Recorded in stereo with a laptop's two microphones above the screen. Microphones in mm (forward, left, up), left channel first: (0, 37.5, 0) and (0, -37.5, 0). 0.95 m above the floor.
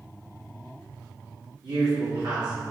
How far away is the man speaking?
About 2 m.